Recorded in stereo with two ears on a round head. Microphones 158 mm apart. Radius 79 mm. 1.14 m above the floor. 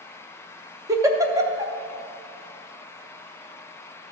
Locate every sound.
0.9 s a giggle: 20° right (ahead or behind), 0.6 m